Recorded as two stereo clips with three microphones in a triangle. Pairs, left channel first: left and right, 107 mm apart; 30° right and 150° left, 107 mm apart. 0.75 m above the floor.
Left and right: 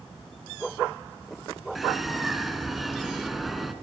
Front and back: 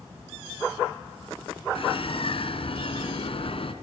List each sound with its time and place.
1.8 s a bird: straight ahead, 2 m